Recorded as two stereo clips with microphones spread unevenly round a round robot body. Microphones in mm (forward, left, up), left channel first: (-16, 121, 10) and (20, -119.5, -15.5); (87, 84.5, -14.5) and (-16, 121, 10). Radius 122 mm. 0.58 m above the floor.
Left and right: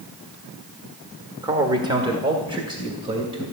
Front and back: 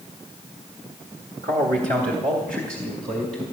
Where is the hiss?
No hiss in this recording.